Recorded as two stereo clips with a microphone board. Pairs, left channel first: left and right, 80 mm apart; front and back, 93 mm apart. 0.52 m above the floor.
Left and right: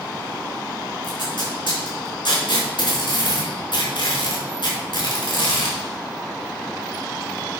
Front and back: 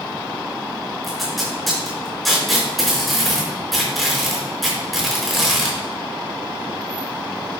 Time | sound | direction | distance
1.0 | tape being pulled | 90° left | 4.5 m